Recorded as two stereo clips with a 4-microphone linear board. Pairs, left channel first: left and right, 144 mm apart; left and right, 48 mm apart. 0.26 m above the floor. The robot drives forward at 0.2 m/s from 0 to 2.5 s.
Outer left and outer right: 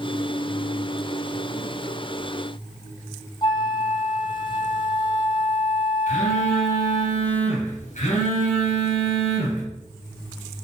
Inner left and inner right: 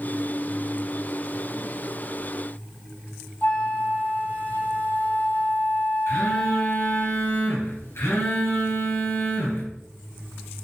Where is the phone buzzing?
60° left (ahead or behind), 3 m.